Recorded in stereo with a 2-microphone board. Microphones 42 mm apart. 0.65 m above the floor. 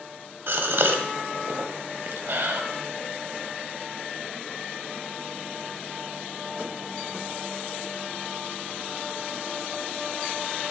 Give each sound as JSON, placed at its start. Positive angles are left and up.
{"t": 0.5, "sound": "a gasp", "side_deg": -60, "distance_m": 0.7}